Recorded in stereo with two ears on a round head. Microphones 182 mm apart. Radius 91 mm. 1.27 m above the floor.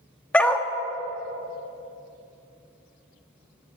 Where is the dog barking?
5° left (ahead or behind), 0.7 m.